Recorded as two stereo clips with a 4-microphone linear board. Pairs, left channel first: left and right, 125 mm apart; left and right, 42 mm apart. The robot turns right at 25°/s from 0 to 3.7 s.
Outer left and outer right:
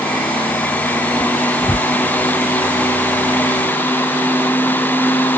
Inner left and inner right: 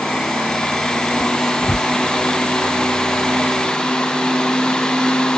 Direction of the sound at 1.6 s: 25° left (ahead or behind).